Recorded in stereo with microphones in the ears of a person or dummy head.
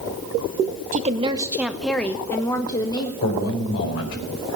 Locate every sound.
0.9 s a woman speaking: 35° right (ahead or behind), 0.6 m; by 3.1 s 25° left (ahead or behind), 1.3 m
3.2 s a man speaking: 80° left, 4.5 m